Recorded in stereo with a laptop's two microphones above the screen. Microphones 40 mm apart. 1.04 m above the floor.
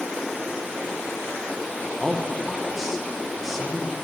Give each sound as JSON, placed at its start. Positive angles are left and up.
{"t": 2.0, "sound": "a man speaking", "side_deg": -5, "distance_m": 0.8}